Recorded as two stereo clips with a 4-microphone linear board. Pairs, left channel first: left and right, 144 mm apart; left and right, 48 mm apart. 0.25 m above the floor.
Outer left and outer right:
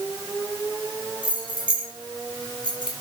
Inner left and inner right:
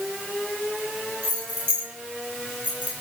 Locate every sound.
1.2 s keys jangling: 35° right (ahead or behind), 5 m; by 2.9 s 30° right (ahead or behind), 3.5 m